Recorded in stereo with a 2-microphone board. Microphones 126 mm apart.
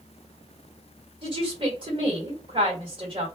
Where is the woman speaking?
40° right (ahead or behind), 1.6 m.